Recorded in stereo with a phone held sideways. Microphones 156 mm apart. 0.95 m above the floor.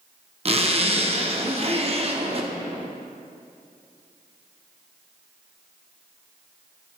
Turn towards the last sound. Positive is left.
turn(degrees=-40)  # may be behind; listen again after turning